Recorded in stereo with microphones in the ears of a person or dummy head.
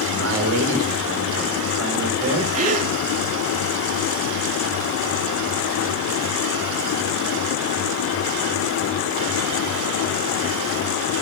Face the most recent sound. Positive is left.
turn(degrees=-45)  # may be behind; listen again after turning